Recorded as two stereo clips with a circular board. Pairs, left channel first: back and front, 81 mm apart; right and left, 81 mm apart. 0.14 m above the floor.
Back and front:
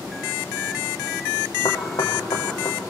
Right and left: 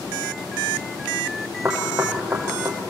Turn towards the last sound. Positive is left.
turn(degrees=155)